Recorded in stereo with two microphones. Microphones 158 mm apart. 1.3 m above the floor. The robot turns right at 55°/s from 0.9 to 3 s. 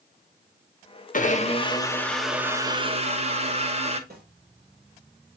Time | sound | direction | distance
1.1 | a blender | 120° left | 0.8 m
4.1 | a snare drum | 65° right (ahead or behind) | 2.5 m